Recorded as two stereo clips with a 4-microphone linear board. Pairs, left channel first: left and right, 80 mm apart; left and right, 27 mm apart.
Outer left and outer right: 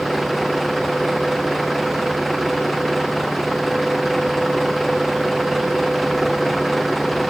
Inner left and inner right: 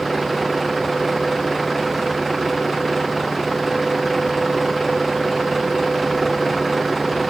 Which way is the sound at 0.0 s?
Centre (ahead or behind).